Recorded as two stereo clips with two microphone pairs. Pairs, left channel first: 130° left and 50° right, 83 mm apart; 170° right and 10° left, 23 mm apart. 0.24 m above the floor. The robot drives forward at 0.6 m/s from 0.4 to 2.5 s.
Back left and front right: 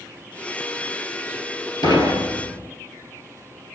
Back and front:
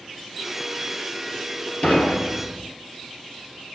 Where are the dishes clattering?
165° left, 3 m.